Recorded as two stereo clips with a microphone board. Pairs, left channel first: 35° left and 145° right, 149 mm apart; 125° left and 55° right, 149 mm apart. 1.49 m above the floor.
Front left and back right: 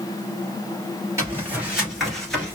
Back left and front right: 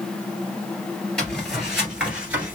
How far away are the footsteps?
About 1.5 m.